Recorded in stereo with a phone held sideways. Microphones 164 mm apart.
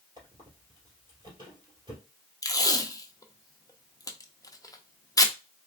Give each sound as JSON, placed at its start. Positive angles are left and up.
{"t": 0.2, "sound": "a squeak", "side_deg": -30, "distance_m": 2.0}
{"t": 2.4, "sound": "tape being pulled", "side_deg": 20, "distance_m": 0.6}